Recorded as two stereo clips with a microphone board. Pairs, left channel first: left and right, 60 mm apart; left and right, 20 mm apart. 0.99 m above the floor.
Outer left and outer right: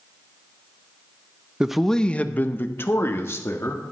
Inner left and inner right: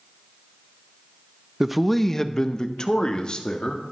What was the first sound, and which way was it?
A man speaking, 15° right (ahead or behind).